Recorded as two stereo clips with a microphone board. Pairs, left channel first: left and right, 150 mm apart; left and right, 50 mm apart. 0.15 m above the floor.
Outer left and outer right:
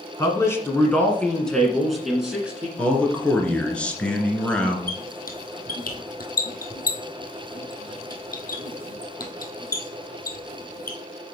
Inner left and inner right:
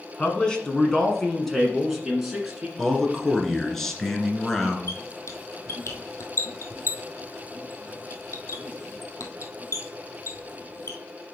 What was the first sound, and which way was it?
A man speaking, 20° left (ahead or behind).